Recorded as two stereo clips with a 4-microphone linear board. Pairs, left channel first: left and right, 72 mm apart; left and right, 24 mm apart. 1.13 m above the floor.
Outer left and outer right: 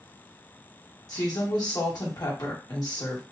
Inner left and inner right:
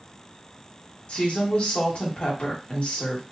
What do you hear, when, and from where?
1.1 s a woman speaking: 60° left (ahead or behind), 1.4 m